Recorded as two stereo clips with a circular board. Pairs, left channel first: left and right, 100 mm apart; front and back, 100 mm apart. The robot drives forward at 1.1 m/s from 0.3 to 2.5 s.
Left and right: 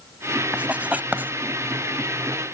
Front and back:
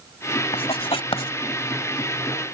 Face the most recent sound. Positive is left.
turn(degrees=-70)